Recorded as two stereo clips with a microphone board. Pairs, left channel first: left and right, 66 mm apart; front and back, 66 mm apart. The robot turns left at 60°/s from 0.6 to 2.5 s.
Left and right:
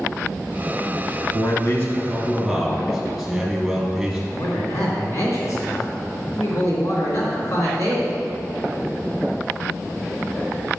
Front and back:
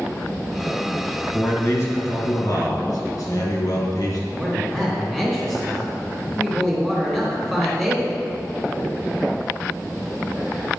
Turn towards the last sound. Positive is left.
turn(degrees=95)